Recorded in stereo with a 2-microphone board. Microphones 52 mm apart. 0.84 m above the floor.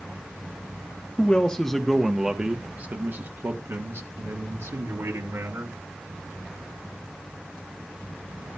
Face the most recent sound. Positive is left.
turn(degrees=-65)  # may be behind; listen again after turning